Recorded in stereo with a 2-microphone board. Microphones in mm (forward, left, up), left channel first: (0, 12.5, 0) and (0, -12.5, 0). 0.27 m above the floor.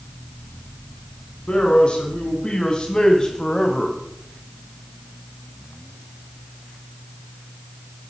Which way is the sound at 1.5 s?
40° left (ahead or behind).